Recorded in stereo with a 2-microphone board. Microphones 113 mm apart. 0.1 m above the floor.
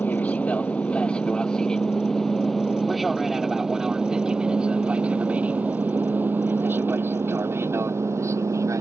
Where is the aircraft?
15° left (ahead or behind); by 8.8 s 25° right (ahead or behind).